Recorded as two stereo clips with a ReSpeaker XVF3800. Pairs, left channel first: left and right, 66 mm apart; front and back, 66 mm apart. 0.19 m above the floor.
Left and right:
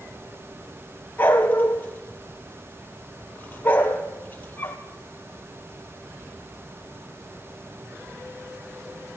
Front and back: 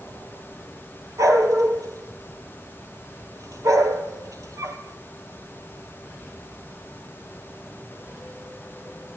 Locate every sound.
1.2 s a dog barking: 155° left, 2.0 m